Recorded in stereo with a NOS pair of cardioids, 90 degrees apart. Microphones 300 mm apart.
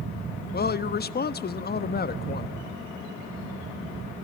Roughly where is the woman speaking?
Ahead left.